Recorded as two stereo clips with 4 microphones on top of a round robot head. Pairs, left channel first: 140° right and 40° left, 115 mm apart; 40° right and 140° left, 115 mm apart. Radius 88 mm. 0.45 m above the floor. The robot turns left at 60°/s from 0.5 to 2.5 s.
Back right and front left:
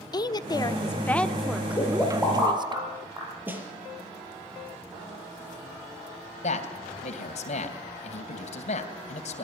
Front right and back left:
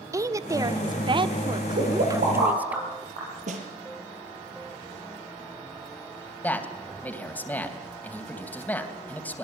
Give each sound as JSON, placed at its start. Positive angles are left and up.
{"t": 0.1, "sound": "a woman speaking", "azimuth_deg": -170, "distance_m": 1.1}
{"t": 1.8, "sound": "a pop", "azimuth_deg": 155, "distance_m": 9.5}
{"t": 3.5, "sound": "a snare drum", "azimuth_deg": 120, "distance_m": 5.0}
{"t": 6.4, "sound": "a man speaking", "azimuth_deg": -120, "distance_m": 3.0}